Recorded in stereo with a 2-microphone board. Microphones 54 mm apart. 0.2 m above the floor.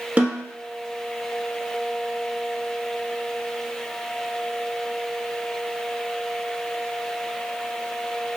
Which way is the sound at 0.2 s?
25° right (ahead or behind).